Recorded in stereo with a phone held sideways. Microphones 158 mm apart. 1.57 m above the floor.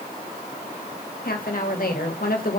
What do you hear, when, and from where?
1.2 s a woman speaking: 70° left (ahead or behind), 1.5 m